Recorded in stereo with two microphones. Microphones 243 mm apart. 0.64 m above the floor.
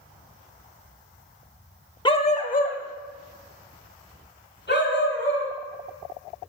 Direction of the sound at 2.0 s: 20° left (ahead or behind).